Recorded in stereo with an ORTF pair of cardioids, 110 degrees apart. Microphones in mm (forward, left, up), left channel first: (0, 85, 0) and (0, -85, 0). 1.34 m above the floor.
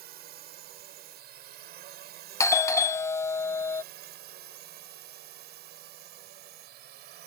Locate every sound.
0.0 s a drone: 70° right; by 7.3 s 75° right
2.4 s a doorbell: 15° left